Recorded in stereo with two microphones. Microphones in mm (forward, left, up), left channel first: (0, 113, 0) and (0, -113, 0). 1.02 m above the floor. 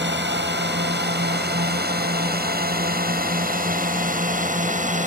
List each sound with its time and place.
0.0 s a drone: 50° right (ahead or behind); by 5.1 s 35° right (ahead or behind)